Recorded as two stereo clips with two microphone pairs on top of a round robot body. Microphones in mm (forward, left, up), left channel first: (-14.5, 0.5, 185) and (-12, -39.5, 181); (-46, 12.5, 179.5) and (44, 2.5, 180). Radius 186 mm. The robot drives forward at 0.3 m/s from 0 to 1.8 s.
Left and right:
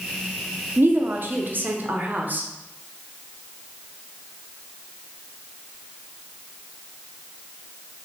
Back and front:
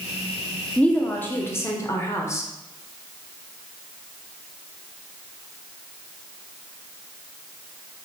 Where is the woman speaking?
110° right, 0.9 m; by 2.5 s 130° right, 1.0 m.